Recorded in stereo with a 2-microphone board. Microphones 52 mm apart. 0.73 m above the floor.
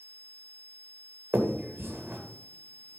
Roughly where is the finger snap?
Right.